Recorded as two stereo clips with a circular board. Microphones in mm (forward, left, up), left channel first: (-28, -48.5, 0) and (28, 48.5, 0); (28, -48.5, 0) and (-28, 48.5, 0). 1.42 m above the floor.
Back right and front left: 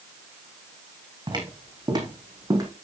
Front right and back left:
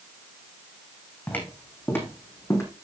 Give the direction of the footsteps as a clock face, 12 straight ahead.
12 o'clock.